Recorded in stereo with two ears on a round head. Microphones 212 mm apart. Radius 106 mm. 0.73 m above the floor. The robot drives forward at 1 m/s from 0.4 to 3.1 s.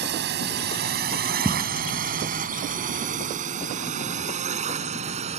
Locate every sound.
0.0 s a drone: 45° right (ahead or behind); by 5.4 s 30° right (ahead or behind)
1.4 s footsteps: centre (ahead or behind)